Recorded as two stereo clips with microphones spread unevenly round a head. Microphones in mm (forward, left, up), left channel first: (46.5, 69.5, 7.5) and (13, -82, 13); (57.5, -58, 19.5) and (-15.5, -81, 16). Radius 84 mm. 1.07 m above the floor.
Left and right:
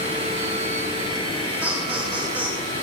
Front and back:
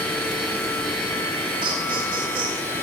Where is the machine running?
50° right, 7 m.